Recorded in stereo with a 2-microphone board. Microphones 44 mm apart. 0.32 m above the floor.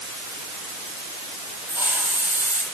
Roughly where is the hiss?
Right.